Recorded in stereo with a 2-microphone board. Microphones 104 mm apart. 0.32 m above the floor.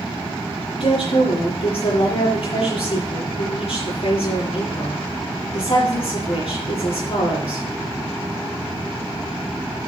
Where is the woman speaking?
65° left (ahead or behind), 8 m.